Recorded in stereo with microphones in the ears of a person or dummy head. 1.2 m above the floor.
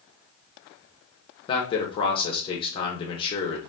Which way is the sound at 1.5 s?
25° left (ahead or behind).